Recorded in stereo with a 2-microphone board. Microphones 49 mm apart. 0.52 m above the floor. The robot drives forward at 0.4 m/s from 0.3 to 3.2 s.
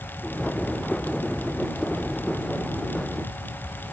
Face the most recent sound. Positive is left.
No sound to turn to.